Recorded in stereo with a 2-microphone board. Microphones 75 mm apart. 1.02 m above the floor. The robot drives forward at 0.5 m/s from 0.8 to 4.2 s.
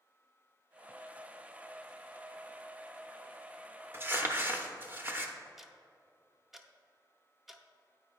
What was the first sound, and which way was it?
Crumpling, 30° right (ahead or behind).